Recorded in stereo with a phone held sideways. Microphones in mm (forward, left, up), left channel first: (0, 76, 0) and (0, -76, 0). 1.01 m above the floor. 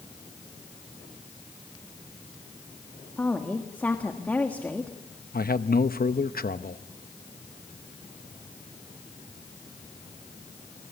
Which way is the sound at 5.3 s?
80° left.